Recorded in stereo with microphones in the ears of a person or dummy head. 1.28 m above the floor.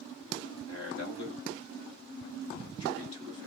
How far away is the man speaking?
About 4.5 m.